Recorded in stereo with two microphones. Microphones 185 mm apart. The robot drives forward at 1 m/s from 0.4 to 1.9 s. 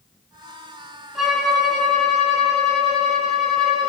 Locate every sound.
1.1 s a violin: centre (ahead or behind), 1.5 m